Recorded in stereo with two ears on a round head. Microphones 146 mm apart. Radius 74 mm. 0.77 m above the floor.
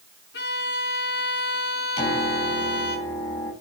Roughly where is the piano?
Left.